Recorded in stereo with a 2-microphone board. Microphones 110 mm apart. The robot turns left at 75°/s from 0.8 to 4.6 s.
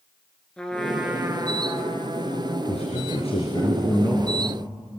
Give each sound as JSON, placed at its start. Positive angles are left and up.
{"t": 0.6, "sound": "a trumpet", "azimuth_deg": 10, "distance_m": 2.5}
{"t": 2.7, "sound": "a man speaking", "azimuth_deg": 115, "distance_m": 3.0}